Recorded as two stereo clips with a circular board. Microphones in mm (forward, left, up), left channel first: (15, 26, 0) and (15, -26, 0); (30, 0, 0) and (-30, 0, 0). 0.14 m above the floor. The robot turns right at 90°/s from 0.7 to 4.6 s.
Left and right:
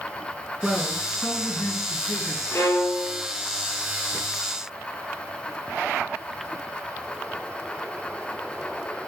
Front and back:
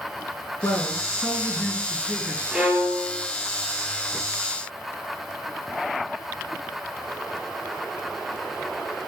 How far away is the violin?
About 2.5 m.